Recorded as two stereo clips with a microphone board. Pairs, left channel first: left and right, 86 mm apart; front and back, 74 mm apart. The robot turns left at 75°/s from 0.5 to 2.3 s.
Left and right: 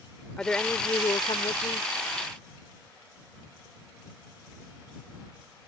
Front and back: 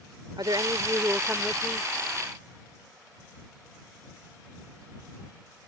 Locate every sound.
0.4 s a woman speaking: 170° left; by 1.9 s 65° left